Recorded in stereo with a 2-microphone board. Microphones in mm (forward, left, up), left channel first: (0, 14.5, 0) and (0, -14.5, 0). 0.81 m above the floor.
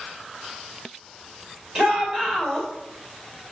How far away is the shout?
About 2.5 m.